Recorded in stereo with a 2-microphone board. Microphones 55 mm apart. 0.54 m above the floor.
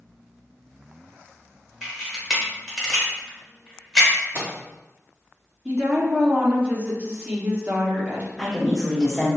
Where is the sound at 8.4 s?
5° right (ahead or behind), 1.0 m.